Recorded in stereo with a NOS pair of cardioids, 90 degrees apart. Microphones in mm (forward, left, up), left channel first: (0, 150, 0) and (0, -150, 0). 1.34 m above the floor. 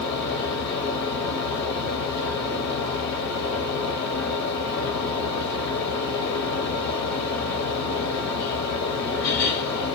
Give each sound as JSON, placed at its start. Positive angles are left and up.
{"t": 0.0, "sound": "a fan", "azimuth_deg": 65, "distance_m": 0.7}